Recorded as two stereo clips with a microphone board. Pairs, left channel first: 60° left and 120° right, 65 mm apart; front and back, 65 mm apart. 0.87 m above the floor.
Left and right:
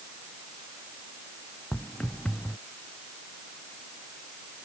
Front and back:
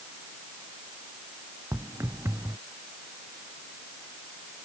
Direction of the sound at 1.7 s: 135° left.